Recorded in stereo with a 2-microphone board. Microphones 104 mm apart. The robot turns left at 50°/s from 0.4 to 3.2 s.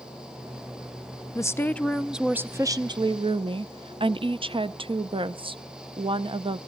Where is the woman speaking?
35° left, 0.5 m; by 6.6 s 60° right, 0.5 m.